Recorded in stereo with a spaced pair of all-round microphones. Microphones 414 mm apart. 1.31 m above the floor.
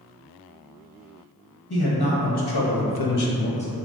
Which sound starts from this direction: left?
A man speaking, at 1.7 s.